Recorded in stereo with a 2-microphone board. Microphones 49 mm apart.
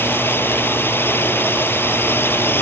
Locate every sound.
0.0 s a drone: 45° left (ahead or behind)